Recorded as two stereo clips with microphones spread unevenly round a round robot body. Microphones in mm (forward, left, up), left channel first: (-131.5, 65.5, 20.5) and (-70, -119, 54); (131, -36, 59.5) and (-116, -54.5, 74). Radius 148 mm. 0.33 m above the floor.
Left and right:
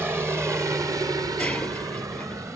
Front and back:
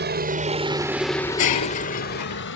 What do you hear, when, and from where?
0.0 s a helicopter: 155° right; by 2.6 s 10° left
1.4 s breaking glass: 20° left